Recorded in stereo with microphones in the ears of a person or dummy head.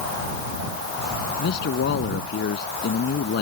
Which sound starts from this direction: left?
A man speaking, at 1.4 s.